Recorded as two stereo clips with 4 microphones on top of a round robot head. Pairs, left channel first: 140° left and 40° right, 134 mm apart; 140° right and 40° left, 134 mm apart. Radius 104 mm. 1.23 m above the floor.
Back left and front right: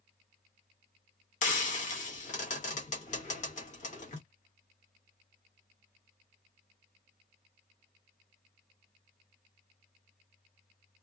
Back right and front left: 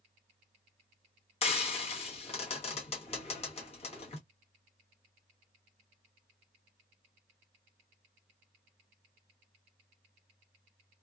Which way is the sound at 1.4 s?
175° left.